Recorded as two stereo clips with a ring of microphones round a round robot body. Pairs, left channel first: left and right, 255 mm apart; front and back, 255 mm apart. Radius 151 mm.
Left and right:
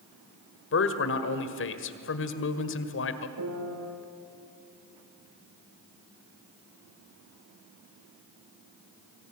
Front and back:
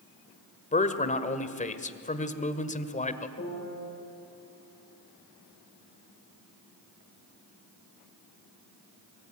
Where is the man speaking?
60° left, 1.7 m.